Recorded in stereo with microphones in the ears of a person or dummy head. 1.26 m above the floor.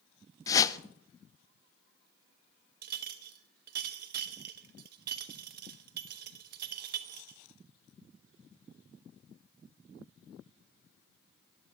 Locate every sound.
0.5 s a whoosh: 20° left (ahead or behind), 0.5 m
2.8 s a clink: 55° right (ahead or behind), 1.1 m